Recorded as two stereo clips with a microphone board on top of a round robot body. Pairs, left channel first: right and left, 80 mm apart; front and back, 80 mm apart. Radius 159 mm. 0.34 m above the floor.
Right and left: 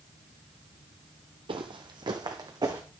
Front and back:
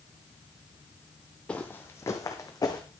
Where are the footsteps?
80° left, 0.6 m; by 2.8 s 50° left, 1.5 m.